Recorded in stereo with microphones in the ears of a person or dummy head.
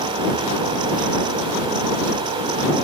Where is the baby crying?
No baby crying in this recording.